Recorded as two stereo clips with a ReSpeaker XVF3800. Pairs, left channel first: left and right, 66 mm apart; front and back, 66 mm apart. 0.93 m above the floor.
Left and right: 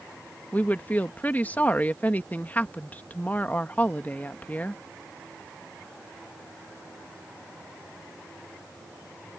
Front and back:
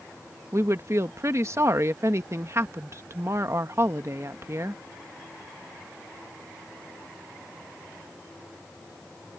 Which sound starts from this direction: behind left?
A woman speaking, at 0.5 s.